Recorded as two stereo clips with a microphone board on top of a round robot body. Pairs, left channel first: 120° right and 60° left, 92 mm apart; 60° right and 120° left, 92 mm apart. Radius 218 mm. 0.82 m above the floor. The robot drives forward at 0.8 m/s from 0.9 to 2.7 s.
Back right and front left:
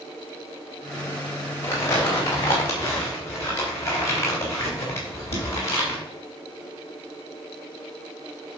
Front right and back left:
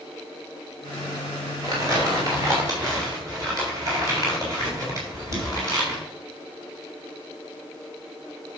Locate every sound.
1.6 s crumpling: 175° left, 2.5 m